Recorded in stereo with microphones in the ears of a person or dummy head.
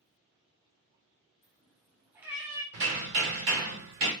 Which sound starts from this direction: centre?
A cat meowing, at 1.4 s.